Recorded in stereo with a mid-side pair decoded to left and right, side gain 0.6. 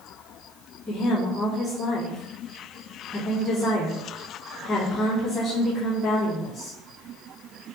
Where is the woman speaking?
30° left, 3 m.